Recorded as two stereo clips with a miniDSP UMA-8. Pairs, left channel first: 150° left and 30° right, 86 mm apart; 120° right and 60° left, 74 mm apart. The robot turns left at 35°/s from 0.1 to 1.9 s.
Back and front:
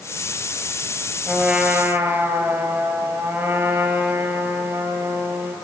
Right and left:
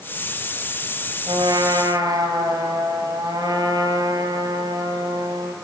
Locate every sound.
1.3 s a trumpet: 60° left, 2.5 m; by 5.5 s 35° left, 2.5 m